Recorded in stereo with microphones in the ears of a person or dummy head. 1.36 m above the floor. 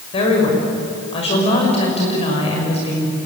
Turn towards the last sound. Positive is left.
turn(degrees=35)  # may be behind; listen again after turning